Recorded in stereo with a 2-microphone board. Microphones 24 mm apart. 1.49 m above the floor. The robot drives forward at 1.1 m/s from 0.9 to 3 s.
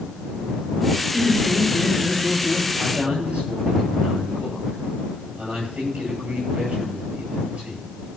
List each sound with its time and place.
1.1 s laughter: 25° right (ahead or behind), 6 m; by 2.7 s 35° right (ahead or behind), 4.5 m
2.8 s a man speaking: 65° right (ahead or behind), 10 m; by 7.8 s 70° right (ahead or behind), 10 m